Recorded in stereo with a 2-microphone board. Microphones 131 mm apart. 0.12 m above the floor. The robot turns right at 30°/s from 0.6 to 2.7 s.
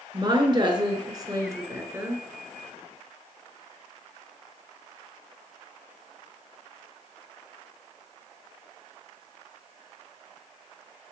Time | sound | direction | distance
0.1 | a woman speaking | 70° right | 1.2 m